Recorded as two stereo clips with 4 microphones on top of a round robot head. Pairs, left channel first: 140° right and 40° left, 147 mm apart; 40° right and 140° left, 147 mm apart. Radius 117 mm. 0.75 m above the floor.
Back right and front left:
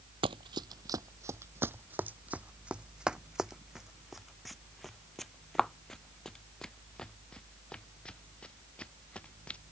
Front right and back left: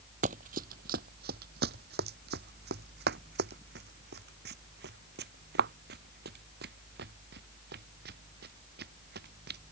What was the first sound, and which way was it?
Running footsteps, 100° left.